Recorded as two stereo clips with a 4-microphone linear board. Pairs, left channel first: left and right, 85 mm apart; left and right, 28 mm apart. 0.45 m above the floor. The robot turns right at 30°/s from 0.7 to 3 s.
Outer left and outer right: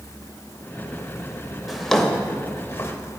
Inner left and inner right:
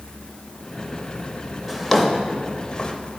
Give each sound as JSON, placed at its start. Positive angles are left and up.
{"t": 1.7, "sound": "a drawer", "side_deg": -5, "distance_m": 0.6}